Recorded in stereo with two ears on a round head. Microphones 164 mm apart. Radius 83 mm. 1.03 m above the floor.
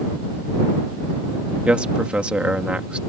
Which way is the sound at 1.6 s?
5° right (ahead or behind).